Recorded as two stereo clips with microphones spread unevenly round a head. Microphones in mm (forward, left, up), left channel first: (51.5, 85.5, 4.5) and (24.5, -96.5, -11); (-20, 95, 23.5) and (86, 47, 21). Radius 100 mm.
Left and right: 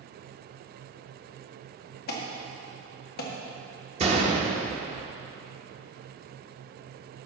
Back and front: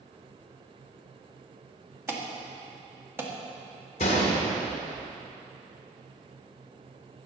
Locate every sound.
2.1 s an alarm: 45° left, 1.8 m
4.0 s a gunshot: 160° right, 1.2 m